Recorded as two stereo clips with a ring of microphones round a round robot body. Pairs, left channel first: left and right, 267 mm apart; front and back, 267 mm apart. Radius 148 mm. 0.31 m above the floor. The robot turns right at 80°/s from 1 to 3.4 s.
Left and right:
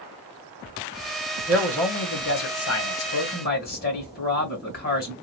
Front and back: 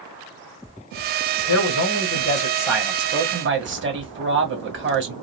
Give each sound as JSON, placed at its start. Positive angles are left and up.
{"t": 1.5, "sound": "a man speaking", "azimuth_deg": -15, "distance_m": 2.0}